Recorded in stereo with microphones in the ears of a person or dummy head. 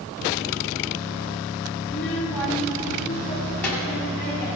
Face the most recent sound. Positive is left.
turn(degrees=5)  # may be behind; listen again after turning